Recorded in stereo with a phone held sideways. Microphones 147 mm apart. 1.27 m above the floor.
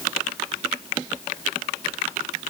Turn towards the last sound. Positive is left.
No sound to turn to.